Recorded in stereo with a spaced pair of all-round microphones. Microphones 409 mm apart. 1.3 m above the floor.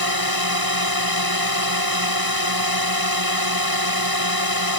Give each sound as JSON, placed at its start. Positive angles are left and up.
{"t": 0.0, "sound": "a drone", "side_deg": -60}